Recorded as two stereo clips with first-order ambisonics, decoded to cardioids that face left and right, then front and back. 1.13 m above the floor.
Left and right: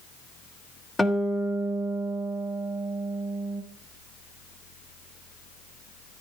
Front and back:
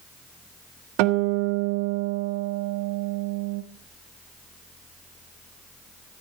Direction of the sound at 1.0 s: 170° left.